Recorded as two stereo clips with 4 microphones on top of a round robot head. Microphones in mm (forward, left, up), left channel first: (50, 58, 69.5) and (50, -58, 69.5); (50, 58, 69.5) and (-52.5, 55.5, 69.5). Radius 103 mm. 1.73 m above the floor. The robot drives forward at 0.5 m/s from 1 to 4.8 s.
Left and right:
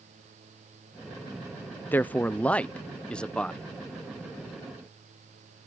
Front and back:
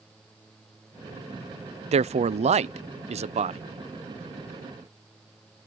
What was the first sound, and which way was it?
A man speaking, 165° left.